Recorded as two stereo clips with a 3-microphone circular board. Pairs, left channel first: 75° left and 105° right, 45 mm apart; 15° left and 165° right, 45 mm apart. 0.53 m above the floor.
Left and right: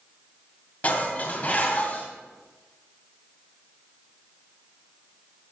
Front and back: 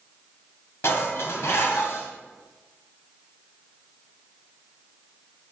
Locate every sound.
0.8 s dishes clattering: 20° left, 2 m